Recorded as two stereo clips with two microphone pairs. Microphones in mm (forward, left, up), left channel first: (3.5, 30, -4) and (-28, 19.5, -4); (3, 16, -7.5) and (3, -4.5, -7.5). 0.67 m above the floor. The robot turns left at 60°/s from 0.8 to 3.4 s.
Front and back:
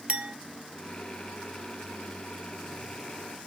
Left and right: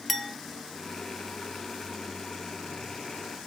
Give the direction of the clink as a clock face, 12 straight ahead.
6 o'clock.